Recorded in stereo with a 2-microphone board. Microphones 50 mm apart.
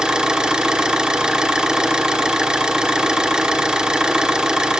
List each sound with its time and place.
0.0 s an engine running: 15° right (ahead or behind), 1.1 m